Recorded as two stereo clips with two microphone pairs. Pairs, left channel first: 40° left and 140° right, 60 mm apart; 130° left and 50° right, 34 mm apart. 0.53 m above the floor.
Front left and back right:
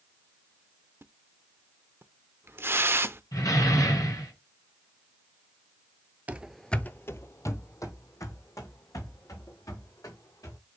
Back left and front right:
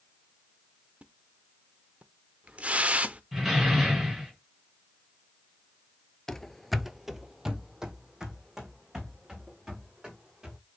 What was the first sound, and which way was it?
A splash, 95° right.